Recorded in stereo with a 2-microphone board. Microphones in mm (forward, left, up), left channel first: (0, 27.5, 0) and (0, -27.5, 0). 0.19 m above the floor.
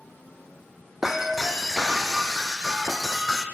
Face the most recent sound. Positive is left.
turn(degrees=-5)  # may be behind; listen again after turning